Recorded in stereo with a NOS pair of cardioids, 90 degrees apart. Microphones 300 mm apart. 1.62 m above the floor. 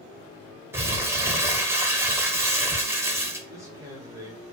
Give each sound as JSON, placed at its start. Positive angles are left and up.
{"t": 0.7, "sound": "crumpling", "azimuth_deg": -10, "distance_m": 0.7}
{"t": 3.5, "sound": "a man speaking", "azimuth_deg": -10, "distance_m": 1.1}